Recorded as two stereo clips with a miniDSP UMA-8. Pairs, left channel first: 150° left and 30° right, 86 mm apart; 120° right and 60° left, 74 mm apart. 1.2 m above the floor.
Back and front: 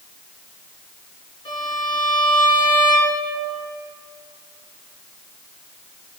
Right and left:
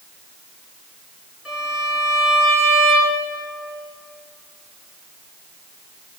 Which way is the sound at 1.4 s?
145° left.